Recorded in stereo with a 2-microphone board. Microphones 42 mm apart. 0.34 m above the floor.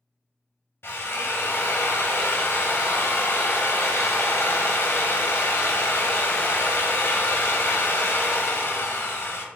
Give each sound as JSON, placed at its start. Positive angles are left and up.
{"t": 0.8, "sound": "a drill", "side_deg": 70, "distance_m": 0.5}